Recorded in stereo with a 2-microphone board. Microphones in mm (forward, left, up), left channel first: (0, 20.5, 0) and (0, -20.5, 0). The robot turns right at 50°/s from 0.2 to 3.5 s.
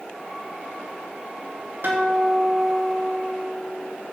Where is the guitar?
55° right, 3.5 m; by 3.9 s 25° left, 3.5 m.